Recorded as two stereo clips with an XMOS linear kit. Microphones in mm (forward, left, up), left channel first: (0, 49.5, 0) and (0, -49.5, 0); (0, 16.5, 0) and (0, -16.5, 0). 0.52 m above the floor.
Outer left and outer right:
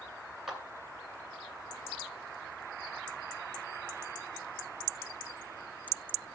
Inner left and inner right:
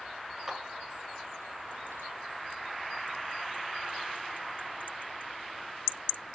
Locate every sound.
0.5 s a clap: centre (ahead or behind), 2.5 m